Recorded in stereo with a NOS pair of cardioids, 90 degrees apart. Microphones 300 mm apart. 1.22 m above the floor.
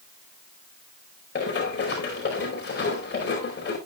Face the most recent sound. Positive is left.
turn(degrees=40)